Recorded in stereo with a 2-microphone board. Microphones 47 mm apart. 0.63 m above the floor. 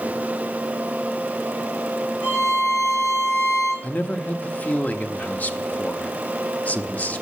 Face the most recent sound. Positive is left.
turn(degrees=30)  # may be behind; listen again after turning